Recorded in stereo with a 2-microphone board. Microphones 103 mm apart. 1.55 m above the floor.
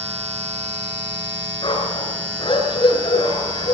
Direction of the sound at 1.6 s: 50° left (ahead or behind).